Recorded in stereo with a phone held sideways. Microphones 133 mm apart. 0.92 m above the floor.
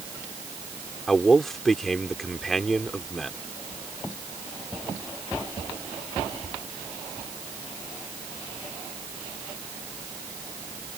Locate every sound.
1.1 s a man speaking: centre (ahead or behind)